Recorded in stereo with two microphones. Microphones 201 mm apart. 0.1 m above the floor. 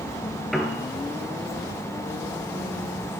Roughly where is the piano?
Centre.